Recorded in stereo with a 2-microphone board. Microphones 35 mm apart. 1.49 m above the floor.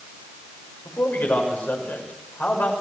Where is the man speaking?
75° left (ahead or behind), 6.5 m.